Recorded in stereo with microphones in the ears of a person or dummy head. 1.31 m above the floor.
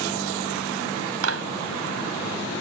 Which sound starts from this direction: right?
A clap, at 1.2 s.